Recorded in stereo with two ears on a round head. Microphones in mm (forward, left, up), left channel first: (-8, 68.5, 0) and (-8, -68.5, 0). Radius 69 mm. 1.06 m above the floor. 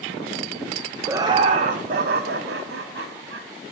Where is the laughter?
15° right (ahead or behind), 0.5 m; by 3.5 s 80° right, 1.4 m.